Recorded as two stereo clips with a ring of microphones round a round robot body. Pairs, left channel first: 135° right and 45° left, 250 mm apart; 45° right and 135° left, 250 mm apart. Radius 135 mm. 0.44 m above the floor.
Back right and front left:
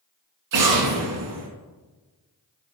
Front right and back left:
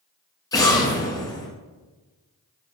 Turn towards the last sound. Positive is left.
turn(degrees=30)